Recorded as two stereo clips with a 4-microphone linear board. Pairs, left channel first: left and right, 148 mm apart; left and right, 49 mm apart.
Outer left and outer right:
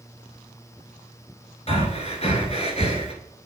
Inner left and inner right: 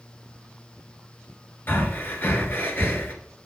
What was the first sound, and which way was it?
Breathing, 45° left (ahead or behind).